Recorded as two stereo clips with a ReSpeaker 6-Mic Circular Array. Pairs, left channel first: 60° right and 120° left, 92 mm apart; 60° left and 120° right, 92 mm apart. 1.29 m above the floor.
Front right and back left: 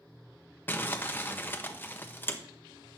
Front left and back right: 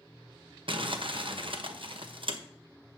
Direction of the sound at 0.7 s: 125° right.